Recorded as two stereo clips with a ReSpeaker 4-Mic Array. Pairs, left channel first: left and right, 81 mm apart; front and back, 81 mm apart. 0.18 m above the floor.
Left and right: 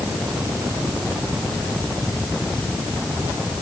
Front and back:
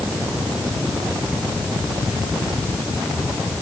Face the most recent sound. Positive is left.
No sound to turn to.